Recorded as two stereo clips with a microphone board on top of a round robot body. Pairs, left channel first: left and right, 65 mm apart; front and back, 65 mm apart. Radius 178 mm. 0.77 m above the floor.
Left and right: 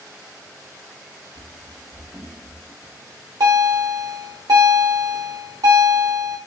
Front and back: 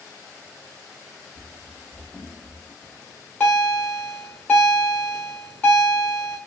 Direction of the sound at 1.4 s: 105° right.